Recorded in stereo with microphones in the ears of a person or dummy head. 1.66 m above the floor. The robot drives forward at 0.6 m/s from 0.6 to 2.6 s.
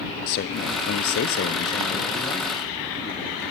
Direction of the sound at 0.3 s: 50° left (ahead or behind).